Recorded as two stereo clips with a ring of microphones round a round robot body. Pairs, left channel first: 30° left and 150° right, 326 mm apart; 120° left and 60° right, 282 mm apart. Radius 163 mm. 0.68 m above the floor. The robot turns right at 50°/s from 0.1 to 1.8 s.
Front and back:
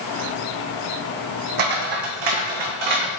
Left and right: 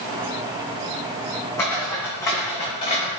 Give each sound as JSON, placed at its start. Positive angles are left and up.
{"t": 1.6, "sound": "footsteps", "azimuth_deg": -160, "distance_m": 1.6}